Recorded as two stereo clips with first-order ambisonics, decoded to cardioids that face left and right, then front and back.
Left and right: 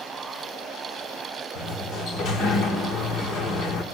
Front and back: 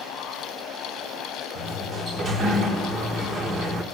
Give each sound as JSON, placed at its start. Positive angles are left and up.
{"t": 1.6, "sound": "a sliding door", "azimuth_deg": 125, "distance_m": 1.8}